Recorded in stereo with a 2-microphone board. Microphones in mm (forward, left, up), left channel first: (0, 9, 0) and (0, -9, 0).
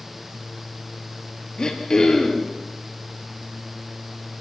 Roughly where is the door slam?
I don't hear a door slam.